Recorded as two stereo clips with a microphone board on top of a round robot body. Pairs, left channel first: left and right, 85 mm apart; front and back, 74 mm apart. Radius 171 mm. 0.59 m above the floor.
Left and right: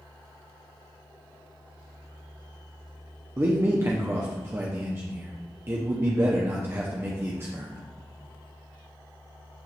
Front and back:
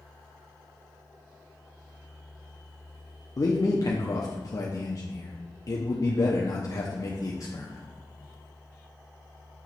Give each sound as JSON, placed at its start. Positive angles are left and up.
{"t": 3.4, "sound": "a man speaking", "azimuth_deg": -35, "distance_m": 0.9}